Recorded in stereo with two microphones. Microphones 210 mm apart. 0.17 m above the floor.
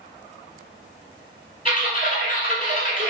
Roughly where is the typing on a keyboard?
Left.